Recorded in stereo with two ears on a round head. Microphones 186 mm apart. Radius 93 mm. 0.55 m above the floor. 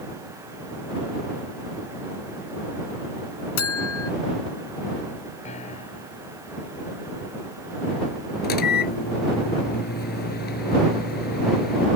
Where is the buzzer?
80° left.